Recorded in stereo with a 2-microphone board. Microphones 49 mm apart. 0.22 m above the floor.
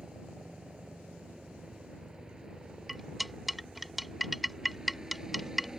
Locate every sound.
0.0 s a helicopter: 15° right (ahead or behind); by 5.8 s 10° right (ahead or behind)
2.9 s cutlery clinking: centre (ahead or behind)